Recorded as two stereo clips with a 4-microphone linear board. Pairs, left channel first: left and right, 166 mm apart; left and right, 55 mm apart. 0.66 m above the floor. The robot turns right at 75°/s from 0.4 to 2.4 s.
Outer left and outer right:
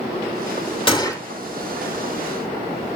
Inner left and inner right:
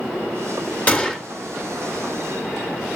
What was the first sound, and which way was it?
A gunshot, 30° left (ahead or behind).